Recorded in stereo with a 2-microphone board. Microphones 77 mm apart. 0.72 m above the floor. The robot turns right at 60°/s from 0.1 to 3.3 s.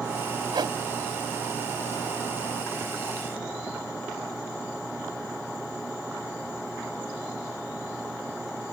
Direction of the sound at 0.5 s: 80° right.